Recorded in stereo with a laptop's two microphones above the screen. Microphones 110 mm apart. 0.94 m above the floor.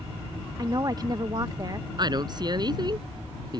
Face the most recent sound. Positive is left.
turn(degrees=-40)  # may be behind; listen again after turning